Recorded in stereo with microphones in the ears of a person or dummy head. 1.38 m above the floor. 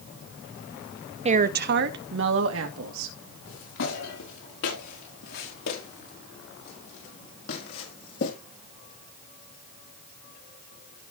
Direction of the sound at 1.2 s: 35° right (ahead or behind).